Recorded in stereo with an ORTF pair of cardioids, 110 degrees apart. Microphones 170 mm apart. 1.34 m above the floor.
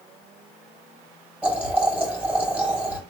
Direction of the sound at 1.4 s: 10° right.